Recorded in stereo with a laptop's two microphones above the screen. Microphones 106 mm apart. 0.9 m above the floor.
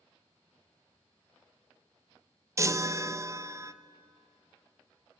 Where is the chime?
30° right (ahead or behind), 0.6 m.